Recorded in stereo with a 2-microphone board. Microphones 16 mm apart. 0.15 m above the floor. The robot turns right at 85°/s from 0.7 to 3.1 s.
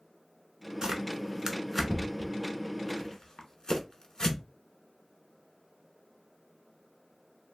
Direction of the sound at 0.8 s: 45° right (ahead or behind).